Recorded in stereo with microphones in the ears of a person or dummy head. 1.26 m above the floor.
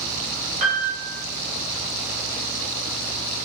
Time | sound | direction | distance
0.6 | a piano | 35° right (ahead or behind) | 4 m